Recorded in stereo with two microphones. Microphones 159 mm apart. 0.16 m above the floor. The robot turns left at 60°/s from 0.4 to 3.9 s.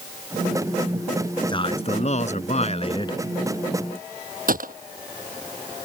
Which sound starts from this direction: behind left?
A man speaking, at 1.5 s.